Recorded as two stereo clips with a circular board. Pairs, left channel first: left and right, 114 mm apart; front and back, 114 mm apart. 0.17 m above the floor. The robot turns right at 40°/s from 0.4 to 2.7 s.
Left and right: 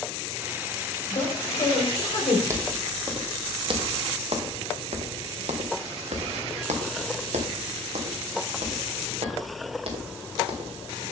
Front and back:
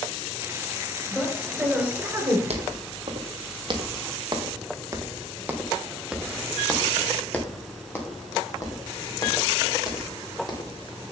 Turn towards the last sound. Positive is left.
turn(degrees=-50)